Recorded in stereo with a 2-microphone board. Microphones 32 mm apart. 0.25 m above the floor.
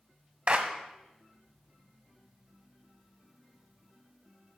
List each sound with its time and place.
0.5 s a clap: 45° right (ahead or behind), 1.4 m